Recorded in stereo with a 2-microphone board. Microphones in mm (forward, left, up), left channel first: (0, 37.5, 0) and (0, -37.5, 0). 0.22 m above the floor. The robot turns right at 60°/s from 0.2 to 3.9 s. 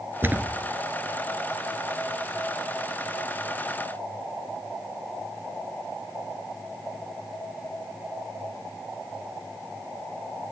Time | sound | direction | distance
0.2 | a thud | 30° right (ahead or behind) | 1.8 m